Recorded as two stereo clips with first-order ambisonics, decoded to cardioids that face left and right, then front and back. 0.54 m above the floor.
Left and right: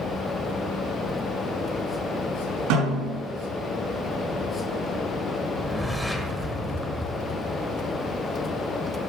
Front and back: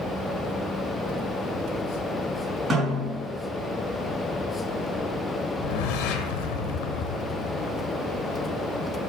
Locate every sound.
2.7 s a snare drum: 100° right, 5 m
5.5 s a whoosh: straight ahead, 1.0 m